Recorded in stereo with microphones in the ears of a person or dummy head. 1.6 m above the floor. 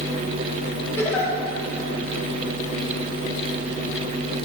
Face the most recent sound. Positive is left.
turn(degrees=15)  # may be behind; listen again after turning